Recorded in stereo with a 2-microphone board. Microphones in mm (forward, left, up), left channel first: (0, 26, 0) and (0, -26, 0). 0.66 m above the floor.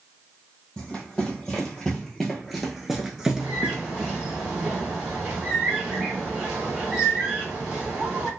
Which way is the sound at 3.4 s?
15° right (ahead or behind).